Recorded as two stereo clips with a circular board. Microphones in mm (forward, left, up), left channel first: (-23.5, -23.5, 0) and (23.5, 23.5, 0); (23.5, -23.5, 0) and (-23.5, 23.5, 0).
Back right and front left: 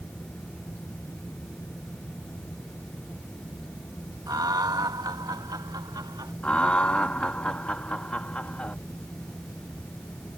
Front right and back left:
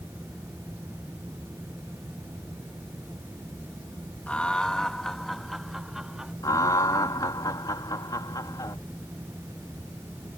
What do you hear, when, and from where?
4.3 s laughter: 25° left; by 6.3 s 55° left
6.4 s laughter: 65° right